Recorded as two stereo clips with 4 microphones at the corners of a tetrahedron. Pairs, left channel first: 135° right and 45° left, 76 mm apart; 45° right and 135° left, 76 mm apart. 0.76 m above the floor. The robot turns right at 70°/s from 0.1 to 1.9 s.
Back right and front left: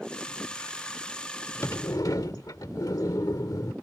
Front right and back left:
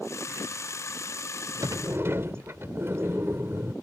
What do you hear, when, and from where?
1.6 s a sliding door: 170° left; by 3.7 s 170° right